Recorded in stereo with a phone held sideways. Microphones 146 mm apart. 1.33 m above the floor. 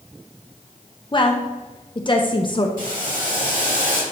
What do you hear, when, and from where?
1.1 s a woman speaking: 35° left (ahead or behind), 0.7 m
2.8 s boiling: 70° right (ahead or behind), 2.5 m